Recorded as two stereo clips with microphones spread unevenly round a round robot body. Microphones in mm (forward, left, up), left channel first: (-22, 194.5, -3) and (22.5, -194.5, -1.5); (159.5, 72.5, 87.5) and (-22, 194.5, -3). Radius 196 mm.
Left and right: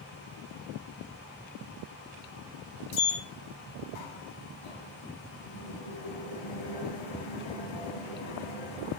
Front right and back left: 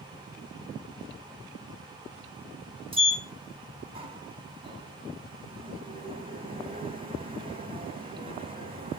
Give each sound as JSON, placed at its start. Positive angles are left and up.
{"t": 2.9, "sound": "a sliding door", "azimuth_deg": 85, "distance_m": 2.5}